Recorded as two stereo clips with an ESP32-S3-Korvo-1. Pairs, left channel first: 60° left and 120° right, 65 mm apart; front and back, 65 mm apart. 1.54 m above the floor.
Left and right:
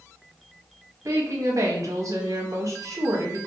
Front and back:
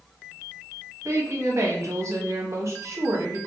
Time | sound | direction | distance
1.1 | a woman speaking | 145° right | 0.7 m